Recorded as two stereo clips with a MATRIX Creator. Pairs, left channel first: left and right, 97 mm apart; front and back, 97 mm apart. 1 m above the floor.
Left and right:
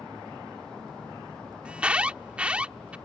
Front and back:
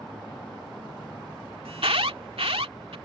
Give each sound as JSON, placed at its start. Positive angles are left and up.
{"t": 1.6, "sound": "an alarm", "azimuth_deg": -170}